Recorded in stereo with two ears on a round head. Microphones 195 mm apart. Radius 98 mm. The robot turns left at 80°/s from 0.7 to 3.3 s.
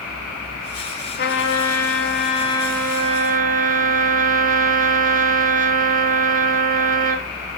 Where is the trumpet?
130° left, 1.4 m; by 7.3 s 40° right, 1.4 m.